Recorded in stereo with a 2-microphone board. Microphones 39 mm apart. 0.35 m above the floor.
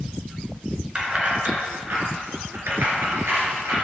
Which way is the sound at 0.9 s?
30° right (ahead or behind).